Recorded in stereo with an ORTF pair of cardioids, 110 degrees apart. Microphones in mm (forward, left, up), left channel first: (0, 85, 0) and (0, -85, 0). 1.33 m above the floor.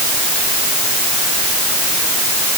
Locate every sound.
Only background noise.